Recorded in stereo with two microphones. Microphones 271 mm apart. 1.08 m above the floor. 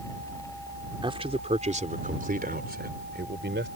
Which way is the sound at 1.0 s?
20° right (ahead or behind).